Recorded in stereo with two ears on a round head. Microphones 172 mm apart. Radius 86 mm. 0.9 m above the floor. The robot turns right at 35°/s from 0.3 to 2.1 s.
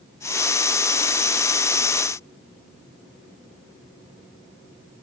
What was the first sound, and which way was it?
Only background noise.